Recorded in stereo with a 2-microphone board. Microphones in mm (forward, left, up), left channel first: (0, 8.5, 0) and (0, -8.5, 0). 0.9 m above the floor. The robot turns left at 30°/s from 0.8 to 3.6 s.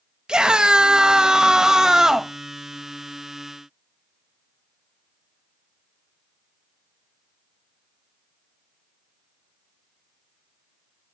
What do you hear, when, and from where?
0.3 s a scream: 105° right, 0.9 m; by 2.3 s 150° right, 0.9 m